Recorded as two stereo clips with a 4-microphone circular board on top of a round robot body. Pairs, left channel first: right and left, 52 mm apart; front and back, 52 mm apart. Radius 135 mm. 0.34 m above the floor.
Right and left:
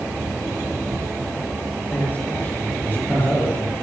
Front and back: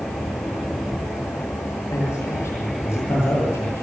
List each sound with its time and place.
1.9 s a man speaking: 35° right, 10 m